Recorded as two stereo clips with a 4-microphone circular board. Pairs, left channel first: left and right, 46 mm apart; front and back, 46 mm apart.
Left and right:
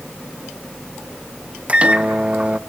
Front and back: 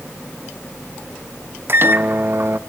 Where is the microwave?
150° right, 0.7 m.